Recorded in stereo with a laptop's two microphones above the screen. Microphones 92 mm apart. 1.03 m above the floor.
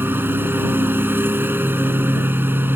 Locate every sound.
0.0 s a lawn mower: 25° right (ahead or behind)